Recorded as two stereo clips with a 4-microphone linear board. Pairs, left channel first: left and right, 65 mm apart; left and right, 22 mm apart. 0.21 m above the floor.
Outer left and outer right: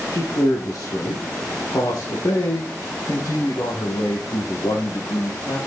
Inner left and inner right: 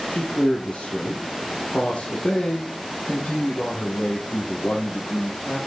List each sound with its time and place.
0.1 s a man speaking: 70° left (ahead or behind), 4.5 m; by 5.6 s 65° left (ahead or behind), 10 m